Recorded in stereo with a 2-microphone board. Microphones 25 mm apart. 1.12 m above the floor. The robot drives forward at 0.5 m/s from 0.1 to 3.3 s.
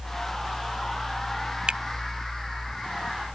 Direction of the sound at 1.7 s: 50° right (ahead or behind).